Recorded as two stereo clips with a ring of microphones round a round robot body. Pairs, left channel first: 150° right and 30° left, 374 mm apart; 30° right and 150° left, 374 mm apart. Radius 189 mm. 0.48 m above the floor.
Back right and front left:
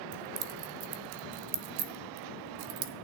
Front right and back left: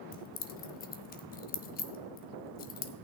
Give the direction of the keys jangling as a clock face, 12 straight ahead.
11 o'clock.